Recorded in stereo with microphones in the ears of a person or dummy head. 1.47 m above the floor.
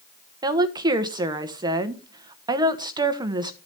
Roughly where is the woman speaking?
Right.